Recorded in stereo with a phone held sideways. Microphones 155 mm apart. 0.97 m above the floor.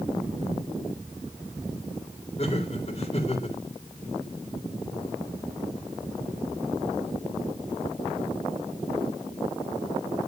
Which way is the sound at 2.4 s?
45° left (ahead or behind).